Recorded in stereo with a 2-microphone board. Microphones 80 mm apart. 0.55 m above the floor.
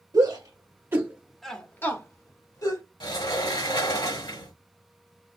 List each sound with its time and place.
0.1 s a shout: 55° right (ahead or behind), 1.5 m; by 2.8 s 55° left (ahead or behind), 1.7 m
3.0 s a sliding door: 80° left, 1.7 m